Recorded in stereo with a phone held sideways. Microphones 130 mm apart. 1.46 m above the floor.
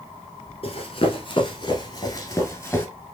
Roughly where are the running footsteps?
Left.